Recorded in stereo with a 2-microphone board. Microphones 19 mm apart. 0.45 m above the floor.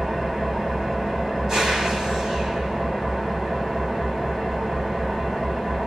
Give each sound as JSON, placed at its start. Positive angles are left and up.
{"t": 0.0, "sound": "an engine running", "side_deg": -40, "distance_m": 1.9}